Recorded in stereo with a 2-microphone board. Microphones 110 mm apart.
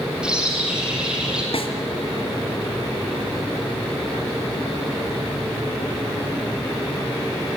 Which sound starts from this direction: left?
A snare drum, at 1.5 s.